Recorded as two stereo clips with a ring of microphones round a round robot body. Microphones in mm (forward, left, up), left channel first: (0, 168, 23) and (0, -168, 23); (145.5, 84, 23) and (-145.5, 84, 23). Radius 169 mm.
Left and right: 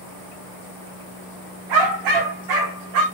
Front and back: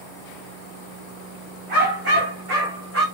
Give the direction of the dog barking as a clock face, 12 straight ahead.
4 o'clock.